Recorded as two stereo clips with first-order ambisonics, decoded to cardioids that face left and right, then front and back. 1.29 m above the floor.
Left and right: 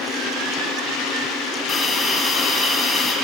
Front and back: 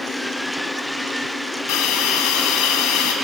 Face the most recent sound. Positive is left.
turn(degrees=20)